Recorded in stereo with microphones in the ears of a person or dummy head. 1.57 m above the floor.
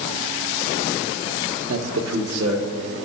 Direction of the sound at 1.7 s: 85° right.